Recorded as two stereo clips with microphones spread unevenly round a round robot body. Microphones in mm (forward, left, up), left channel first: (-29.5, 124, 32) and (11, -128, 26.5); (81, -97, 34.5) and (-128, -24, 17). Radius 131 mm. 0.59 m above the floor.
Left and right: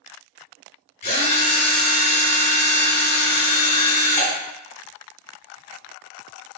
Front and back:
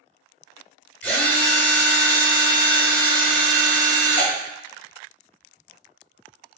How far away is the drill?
About 1.3 m.